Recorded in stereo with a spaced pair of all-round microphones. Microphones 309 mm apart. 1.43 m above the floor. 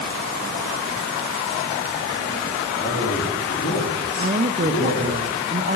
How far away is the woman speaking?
About 0.6 m.